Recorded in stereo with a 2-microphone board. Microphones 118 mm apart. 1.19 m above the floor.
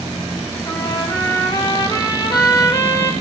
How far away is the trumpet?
About 3.5 m.